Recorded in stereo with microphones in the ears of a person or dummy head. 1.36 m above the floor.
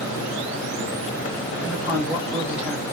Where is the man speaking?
5° right (ahead or behind), 3 m.